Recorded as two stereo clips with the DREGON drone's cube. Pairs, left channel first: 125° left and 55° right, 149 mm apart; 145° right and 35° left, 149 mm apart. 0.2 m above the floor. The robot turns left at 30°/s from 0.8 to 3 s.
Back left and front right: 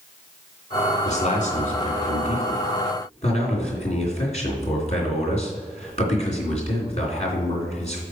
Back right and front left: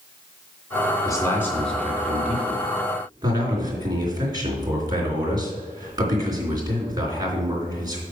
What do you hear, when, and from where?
1.1 s a man speaking: 150° left, 3 m; by 8.0 s 95° left, 3 m